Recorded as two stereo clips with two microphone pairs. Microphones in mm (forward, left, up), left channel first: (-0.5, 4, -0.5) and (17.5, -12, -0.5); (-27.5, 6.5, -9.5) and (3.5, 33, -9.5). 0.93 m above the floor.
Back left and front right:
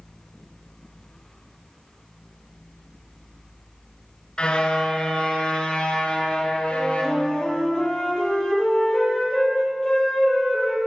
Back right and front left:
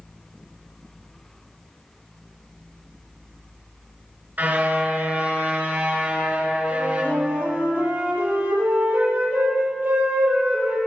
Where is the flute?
70° left, 9.5 m.